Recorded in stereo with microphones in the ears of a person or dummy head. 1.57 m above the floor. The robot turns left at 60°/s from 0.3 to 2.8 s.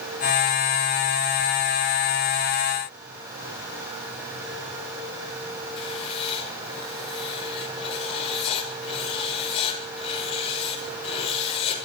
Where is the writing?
30° left (ahead or behind), 6.5 m.